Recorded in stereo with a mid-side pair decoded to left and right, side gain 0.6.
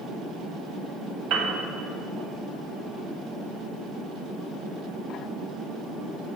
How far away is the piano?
About 0.9 m.